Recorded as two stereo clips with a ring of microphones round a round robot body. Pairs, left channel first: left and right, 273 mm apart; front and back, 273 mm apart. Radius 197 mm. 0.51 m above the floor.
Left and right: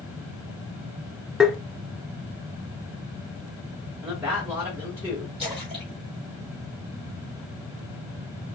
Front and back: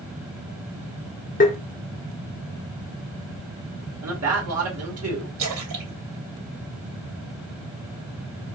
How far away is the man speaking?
About 2 m.